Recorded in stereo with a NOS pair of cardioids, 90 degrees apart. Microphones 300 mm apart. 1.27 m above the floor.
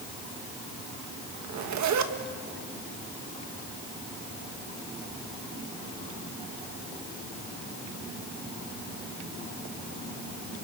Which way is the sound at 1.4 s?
65° right.